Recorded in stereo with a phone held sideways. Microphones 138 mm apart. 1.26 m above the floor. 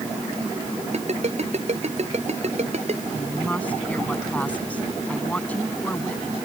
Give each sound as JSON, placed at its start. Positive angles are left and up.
{"t": 0.9, "sound": "a ringtone", "side_deg": -55}
{"t": 3.1, "sound": "a woman speaking", "side_deg": 10}